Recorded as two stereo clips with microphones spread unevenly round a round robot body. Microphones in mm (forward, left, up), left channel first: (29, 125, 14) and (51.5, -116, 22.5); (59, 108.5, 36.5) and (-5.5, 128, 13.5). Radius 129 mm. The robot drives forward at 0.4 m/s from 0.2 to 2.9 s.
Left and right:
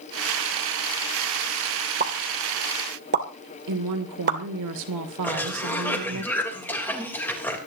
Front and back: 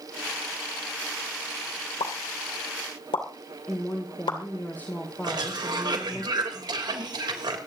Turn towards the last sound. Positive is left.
turn(degrees=180)